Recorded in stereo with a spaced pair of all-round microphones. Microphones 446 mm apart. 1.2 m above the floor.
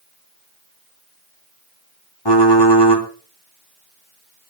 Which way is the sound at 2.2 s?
70° left (ahead or behind).